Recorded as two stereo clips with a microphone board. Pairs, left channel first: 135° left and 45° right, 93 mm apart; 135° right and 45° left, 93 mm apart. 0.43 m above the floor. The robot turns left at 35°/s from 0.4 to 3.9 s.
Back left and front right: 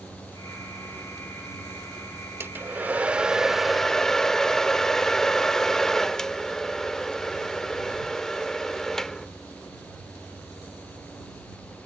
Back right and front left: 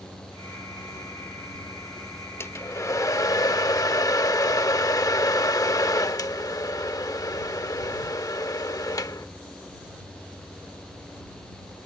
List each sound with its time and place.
2.4 s a hair dryer: 90° right; by 9.3 s 145° right